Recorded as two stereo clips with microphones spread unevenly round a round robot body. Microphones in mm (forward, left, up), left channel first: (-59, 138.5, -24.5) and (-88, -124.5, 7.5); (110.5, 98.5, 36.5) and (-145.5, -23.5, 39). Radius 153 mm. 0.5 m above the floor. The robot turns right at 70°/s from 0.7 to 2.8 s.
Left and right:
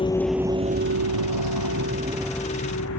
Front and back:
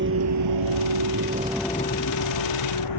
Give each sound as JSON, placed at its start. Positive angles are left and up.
{"t": 0.0, "sound": "a vehicle", "azimuth_deg": 155}